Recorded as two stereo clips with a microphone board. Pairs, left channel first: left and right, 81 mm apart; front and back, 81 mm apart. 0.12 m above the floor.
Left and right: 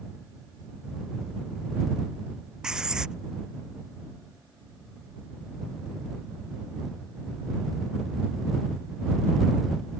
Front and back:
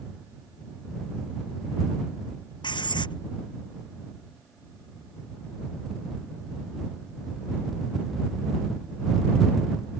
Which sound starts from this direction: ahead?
Writing, at 2.6 s.